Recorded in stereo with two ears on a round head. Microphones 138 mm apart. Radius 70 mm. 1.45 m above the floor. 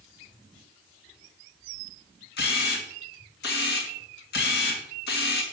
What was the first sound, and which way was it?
A camera shutter, 80° left.